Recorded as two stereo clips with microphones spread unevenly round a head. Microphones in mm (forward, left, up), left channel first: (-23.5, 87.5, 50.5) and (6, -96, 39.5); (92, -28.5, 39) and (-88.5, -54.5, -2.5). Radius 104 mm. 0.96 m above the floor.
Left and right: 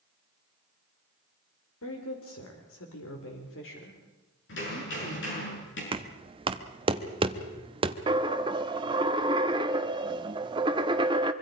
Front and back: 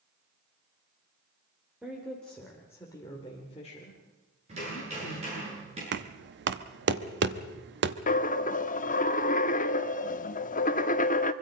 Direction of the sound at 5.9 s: 145° right.